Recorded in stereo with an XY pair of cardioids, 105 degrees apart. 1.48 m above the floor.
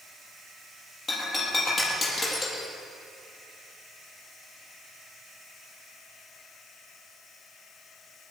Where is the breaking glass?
45° left, 7 m.